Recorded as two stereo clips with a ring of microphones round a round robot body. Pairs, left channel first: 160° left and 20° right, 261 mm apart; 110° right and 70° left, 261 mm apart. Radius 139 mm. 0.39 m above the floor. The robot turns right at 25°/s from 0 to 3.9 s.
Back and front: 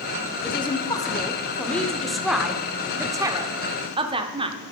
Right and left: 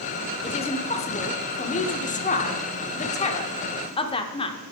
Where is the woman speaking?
155° right, 0.8 m; by 4.6 s 70° right, 0.8 m.